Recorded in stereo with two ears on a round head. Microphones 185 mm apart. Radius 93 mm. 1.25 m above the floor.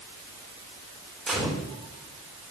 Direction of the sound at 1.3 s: Centre (ahead or behind).